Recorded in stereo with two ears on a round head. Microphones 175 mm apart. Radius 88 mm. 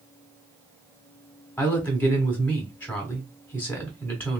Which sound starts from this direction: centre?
A woman speaking, at 1.6 s.